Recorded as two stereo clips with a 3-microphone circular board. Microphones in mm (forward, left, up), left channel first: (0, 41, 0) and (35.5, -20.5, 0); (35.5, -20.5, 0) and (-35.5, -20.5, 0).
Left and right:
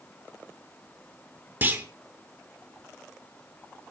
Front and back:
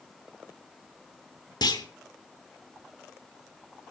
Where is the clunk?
Straight ahead, 1.6 m.